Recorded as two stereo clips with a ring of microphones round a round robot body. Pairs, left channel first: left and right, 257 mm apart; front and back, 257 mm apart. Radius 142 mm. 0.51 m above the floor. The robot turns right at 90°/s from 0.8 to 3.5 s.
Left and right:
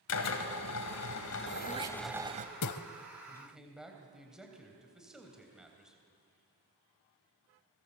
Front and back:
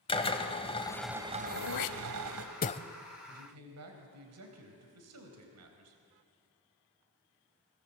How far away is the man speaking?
About 3.5 m.